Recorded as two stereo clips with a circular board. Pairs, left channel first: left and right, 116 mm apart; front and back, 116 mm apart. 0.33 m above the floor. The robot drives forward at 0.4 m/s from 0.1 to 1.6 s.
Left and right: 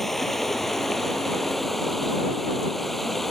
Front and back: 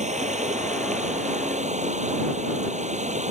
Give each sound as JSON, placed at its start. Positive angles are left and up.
{"t": 0.0, "sound": "running water", "azimuth_deg": 180}